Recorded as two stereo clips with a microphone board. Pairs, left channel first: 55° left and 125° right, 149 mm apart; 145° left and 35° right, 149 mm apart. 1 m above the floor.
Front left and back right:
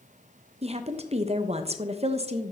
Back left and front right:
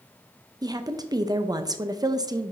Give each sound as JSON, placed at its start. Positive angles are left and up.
{"t": 0.6, "sound": "a woman speaking", "azimuth_deg": -95, "distance_m": 0.5}